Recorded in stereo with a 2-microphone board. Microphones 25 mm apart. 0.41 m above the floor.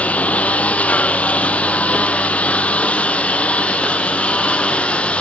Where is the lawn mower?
80° left; by 5.2 s 60° left (ahead or behind).